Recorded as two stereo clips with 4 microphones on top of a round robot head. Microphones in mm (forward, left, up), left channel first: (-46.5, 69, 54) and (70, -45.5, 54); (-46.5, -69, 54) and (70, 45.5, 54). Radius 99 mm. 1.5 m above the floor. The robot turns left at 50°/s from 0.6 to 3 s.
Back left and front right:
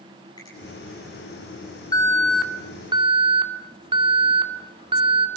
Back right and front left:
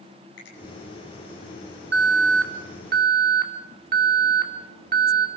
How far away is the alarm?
About 2.5 m.